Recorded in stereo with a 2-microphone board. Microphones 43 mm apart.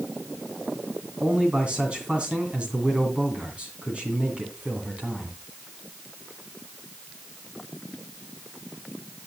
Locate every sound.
1.2 s a man speaking: 30° right (ahead or behind), 2.5 m